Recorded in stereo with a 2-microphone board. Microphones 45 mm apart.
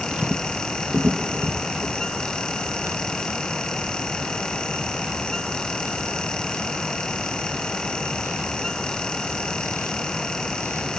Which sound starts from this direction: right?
Footsteps, at 0.1 s.